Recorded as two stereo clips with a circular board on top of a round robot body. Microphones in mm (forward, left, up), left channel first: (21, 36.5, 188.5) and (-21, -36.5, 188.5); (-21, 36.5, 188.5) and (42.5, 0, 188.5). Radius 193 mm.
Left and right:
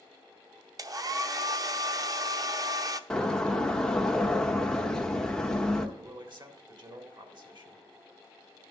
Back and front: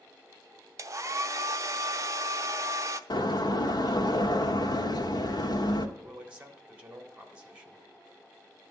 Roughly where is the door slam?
Behind left.